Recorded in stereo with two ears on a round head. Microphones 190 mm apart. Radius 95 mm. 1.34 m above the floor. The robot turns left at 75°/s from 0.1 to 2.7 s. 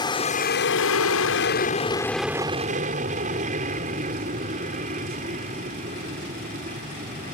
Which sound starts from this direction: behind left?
An aircraft, at 0.0 s.